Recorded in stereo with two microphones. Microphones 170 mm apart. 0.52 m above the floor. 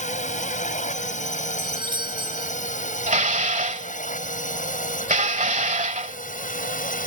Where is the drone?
45° left (ahead or behind); by 7.1 s 55° left (ahead or behind).